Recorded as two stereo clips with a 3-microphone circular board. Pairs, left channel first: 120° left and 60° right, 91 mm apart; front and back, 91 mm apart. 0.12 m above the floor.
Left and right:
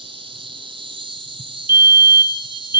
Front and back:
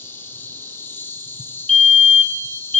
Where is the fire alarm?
80° right, 2.5 m.